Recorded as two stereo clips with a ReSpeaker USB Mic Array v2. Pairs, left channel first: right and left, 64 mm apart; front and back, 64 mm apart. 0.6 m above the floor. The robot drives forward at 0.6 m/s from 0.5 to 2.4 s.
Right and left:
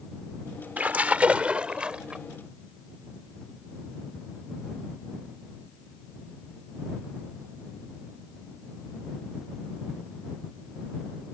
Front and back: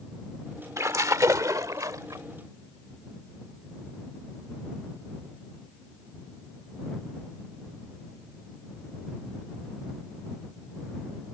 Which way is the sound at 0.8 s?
150° left.